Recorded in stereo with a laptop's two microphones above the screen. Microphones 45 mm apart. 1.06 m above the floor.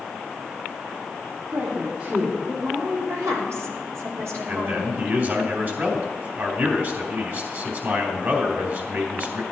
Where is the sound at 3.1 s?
80° right, 3 m.